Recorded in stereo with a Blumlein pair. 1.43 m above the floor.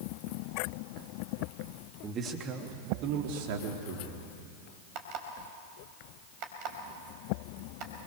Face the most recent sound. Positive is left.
turn(degrees=-40)